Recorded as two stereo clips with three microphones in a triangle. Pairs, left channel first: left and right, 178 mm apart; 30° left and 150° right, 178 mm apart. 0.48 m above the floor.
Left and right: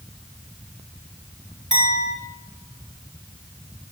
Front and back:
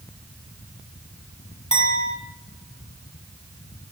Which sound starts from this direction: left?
A clink, at 1.7 s.